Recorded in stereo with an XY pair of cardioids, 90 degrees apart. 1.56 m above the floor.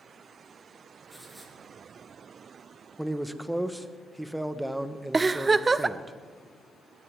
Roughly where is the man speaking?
Ahead.